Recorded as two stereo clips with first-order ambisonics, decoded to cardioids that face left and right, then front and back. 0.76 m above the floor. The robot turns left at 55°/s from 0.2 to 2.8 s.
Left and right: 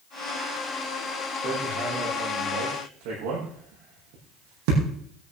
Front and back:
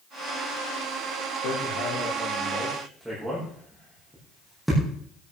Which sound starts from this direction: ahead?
Hammering, at 1.4 s.